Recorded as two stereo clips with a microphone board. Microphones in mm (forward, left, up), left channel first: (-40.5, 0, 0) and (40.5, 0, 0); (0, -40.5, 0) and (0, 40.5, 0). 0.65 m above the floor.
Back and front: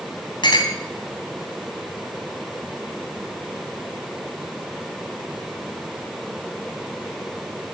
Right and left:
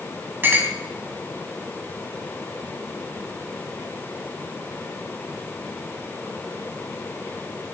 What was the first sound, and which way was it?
A clink, 155° left.